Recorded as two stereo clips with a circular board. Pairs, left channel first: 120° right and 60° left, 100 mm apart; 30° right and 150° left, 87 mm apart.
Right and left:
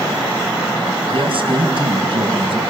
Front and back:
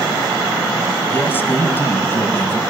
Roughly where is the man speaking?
Ahead left.